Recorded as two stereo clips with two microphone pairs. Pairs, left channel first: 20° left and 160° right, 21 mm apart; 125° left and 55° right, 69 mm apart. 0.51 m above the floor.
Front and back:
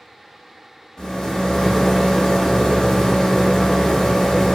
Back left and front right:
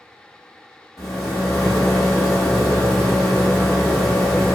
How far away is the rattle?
About 1.5 m.